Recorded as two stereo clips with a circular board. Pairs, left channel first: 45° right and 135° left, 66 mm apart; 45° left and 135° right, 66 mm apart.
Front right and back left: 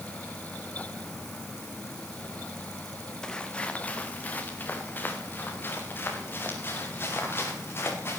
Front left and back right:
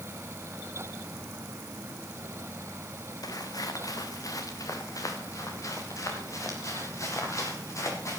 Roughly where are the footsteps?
Ahead left.